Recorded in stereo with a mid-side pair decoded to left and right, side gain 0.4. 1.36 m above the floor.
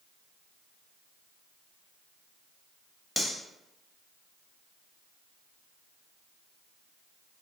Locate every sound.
3.2 s cutlery clinking: 10° right, 1.2 m